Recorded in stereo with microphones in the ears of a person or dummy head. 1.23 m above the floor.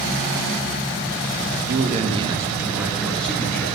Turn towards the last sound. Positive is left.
turn(degrees=10)  # may be behind; listen again after turning